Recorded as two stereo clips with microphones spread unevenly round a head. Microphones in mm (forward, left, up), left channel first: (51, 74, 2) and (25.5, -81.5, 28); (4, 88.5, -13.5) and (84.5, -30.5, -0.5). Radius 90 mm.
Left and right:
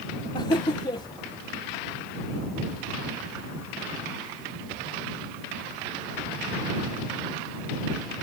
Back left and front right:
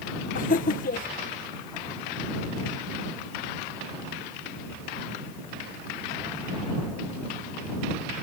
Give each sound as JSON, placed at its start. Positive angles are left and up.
{"t": 0.3, "sound": "laughter", "azimuth_deg": 155}